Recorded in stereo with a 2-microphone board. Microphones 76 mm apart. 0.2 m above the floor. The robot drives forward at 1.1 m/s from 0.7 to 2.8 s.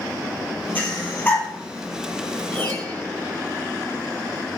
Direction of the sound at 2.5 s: 15° left (ahead or behind).